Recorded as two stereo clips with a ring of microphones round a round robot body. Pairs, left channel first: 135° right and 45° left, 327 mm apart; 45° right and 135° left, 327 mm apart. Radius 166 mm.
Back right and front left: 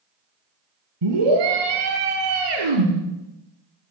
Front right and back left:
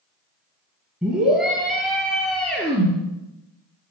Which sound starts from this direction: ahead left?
A scream, at 1.0 s.